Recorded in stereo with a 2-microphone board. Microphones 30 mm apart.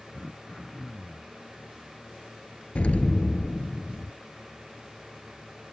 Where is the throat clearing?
5° left (ahead or behind).